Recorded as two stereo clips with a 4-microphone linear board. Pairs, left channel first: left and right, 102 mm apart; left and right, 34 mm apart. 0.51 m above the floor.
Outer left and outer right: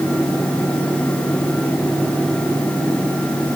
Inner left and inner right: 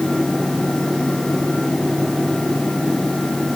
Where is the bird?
No bird in this recording.